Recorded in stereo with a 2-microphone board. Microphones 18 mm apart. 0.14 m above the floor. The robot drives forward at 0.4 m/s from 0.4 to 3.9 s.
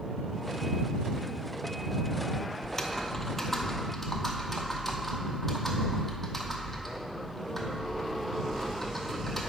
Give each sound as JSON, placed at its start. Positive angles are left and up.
{"t": 2.6, "sound": "typing on a keyboard", "side_deg": 20, "distance_m": 0.6}